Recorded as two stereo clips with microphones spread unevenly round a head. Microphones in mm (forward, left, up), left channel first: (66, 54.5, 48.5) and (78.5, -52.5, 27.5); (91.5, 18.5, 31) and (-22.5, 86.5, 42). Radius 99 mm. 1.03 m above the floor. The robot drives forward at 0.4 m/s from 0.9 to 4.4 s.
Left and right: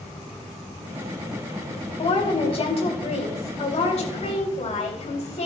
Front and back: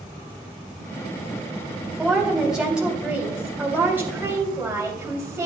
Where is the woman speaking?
60° left, 3 m; by 5.5 s 75° left, 3 m.